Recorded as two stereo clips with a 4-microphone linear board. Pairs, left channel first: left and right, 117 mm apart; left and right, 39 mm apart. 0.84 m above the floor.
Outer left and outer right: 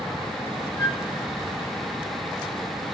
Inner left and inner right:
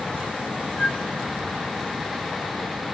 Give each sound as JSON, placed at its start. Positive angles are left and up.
{"t": 0.8, "sound": "a flute", "side_deg": 25, "distance_m": 5.5}